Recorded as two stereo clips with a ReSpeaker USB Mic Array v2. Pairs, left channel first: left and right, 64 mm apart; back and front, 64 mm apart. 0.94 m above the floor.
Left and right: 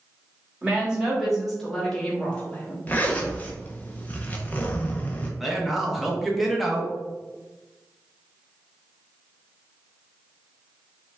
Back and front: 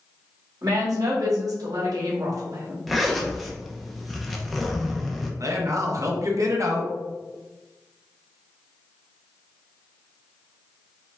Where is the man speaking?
5° right, 1.0 m.